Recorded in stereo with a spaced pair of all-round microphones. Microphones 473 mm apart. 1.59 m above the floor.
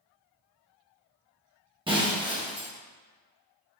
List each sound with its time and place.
1.9 s breaking glass: 10° right (ahead or behind), 1.0 m